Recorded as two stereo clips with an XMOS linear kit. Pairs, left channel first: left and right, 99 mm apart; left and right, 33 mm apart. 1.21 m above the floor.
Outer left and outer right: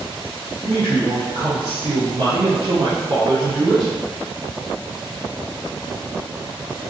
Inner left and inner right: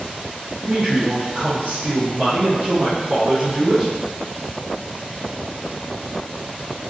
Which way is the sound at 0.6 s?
80° right.